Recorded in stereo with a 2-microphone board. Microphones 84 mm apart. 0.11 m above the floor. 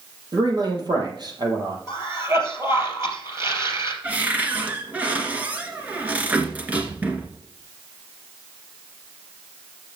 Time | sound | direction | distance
0.3 | a man speaking | 55° right (ahead or behind) | 3.5 m
1.9 | a cough | 35° right (ahead or behind) | 3 m
4.0 | a cupboard door | 15° right (ahead or behind) | 1.9 m